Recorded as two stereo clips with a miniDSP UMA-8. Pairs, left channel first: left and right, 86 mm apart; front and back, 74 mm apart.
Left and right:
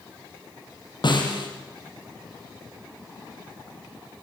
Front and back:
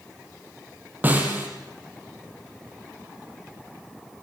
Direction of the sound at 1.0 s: 115° left.